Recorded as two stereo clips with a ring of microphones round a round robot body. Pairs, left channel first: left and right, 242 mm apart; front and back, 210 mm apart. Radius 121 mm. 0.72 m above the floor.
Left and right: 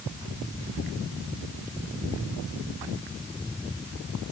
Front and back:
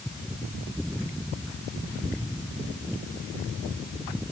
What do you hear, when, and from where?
Only background noise.